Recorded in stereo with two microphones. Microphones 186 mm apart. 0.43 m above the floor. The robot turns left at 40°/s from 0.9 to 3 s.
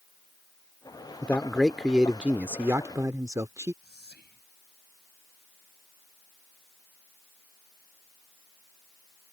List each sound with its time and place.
1.2 s a man speaking: 10° left (ahead or behind); by 3.7 s 15° right (ahead or behind)
3.8 s whispering: 65° left (ahead or behind)